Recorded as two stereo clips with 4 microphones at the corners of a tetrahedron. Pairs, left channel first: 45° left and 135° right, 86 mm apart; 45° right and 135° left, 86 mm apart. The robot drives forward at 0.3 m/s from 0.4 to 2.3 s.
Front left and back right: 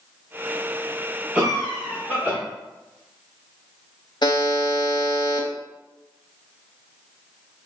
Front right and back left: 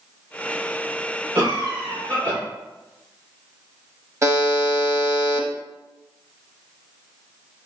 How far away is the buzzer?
About 0.7 m.